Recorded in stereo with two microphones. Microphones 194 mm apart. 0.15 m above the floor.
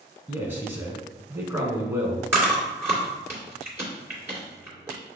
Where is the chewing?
15° right (ahead or behind), 2 m.